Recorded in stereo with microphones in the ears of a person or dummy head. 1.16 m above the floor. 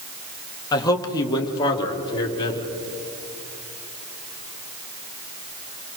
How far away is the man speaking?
About 2 m.